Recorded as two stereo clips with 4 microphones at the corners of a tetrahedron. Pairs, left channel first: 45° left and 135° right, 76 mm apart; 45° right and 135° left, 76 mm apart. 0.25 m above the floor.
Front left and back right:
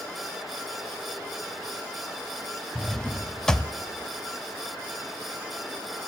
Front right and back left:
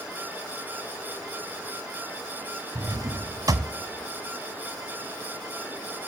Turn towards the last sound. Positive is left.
turn(degrees=125)